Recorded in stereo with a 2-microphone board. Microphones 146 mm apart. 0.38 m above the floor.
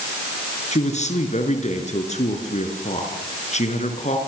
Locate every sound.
0.7 s a man speaking: 50° left (ahead or behind), 5 m